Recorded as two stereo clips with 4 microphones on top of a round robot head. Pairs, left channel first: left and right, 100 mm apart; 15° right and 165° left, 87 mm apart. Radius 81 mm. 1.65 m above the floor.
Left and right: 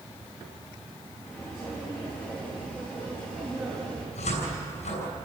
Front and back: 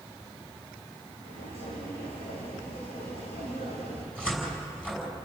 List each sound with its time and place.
1.2 s footsteps: 10° right, 6 m; by 4.0 s 25° right, 5 m
4.2 s a cupboard door: 65° left, 5.5 m